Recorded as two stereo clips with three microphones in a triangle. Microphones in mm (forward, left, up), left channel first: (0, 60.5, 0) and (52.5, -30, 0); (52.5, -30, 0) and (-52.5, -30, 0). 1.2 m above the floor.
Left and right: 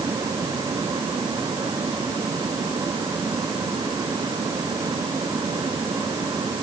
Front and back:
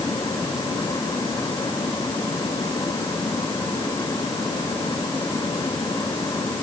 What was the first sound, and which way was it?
Only background noise.